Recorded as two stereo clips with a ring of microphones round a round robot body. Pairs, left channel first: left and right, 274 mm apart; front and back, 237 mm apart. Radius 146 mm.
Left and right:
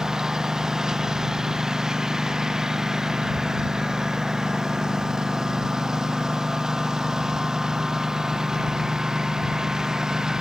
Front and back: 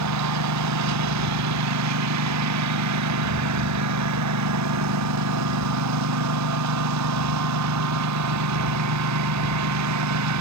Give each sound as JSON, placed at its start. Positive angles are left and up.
{"t": 0.0, "sound": "a lawn mower", "azimuth_deg": 180}